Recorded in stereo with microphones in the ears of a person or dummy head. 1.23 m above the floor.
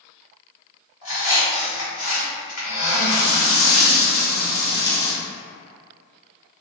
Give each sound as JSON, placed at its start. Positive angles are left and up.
{"t": 1.0, "sound": "a squeak", "side_deg": 40, "distance_m": 1.5}
{"t": 3.1, "sound": "frying", "side_deg": 15, "distance_m": 0.6}